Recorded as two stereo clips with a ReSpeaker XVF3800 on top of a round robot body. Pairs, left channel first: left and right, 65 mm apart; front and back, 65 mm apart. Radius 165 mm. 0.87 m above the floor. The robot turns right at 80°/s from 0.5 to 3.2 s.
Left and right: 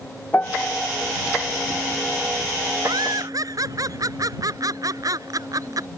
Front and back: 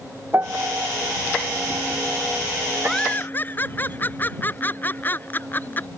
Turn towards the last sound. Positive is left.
turn(degrees=-60)